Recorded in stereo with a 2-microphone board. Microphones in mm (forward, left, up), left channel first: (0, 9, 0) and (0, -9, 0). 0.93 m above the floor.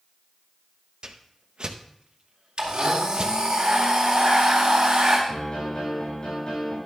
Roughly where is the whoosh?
Right.